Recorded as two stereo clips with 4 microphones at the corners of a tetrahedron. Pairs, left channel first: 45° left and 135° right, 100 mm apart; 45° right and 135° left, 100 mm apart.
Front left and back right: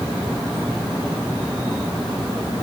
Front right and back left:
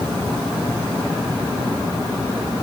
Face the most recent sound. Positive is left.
No sound to turn to.